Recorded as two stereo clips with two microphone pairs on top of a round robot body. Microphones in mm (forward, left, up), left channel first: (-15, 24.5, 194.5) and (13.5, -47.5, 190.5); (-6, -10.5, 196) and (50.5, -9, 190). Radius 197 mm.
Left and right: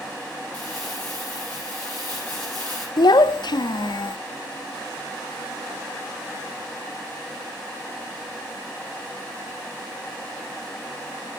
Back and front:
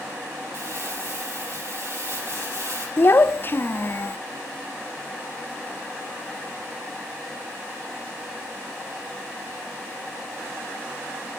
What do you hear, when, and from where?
0.5 s crumpling: 40° left, 5 m
3.0 s a child speaking: 130° left, 0.6 m